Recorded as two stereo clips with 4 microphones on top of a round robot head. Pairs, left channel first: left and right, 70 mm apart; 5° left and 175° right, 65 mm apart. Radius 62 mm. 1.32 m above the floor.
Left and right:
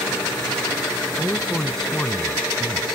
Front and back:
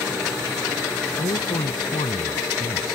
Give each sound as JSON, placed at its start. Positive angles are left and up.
{"t": 1.2, "sound": "a man speaking", "azimuth_deg": 10}